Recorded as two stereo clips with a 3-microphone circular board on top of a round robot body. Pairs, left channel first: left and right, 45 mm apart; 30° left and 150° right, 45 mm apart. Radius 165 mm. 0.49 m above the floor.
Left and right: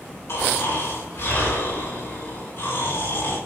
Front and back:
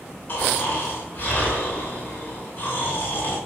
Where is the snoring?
75° left, 7 m.